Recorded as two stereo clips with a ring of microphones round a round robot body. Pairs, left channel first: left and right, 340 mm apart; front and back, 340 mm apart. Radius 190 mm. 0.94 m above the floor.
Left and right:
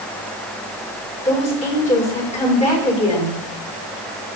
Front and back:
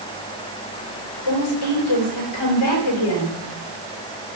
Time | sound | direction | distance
1.2 | a woman speaking | 20° left | 5 m